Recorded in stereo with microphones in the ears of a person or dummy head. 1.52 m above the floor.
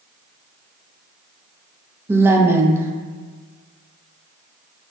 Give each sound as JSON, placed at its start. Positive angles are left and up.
{"t": 2.1, "sound": "a woman speaking", "side_deg": -15, "distance_m": 0.5}